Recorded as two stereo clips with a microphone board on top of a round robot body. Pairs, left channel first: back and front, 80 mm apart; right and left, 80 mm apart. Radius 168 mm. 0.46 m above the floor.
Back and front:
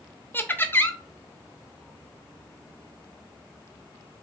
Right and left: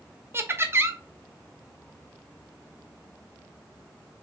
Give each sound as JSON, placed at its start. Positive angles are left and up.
{"t": 0.3, "sound": "laughter", "azimuth_deg": 130, "distance_m": 0.9}